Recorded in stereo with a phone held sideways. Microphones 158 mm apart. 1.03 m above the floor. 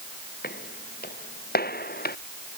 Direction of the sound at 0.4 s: 80° left.